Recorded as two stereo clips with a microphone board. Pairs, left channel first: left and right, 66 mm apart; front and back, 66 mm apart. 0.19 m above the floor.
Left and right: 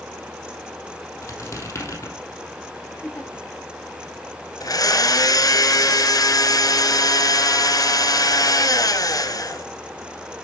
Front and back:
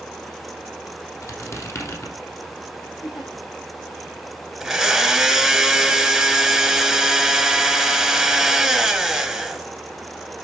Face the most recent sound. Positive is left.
turn(degrees=95)